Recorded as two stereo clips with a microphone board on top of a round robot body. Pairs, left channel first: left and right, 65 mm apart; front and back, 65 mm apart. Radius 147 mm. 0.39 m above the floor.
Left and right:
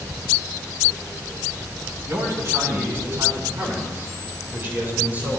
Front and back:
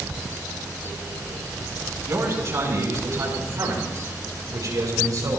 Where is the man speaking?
135° right, 4 m; by 5.4 s 155° right, 5 m.